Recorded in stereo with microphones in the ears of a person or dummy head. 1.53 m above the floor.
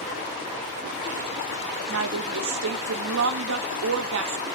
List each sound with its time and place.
1.9 s a woman speaking: 70° right (ahead or behind), 0.6 m